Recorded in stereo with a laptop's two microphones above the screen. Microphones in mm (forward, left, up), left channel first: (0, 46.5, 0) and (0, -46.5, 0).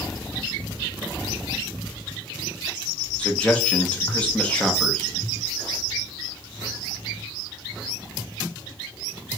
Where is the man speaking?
10° left (ahead or behind), 0.6 m.